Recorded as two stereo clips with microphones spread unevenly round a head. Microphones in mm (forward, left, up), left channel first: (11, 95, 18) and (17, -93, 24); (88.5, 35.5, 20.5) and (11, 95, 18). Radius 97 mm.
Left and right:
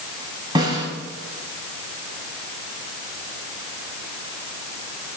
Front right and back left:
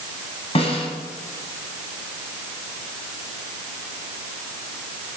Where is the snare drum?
20° right, 7.5 m.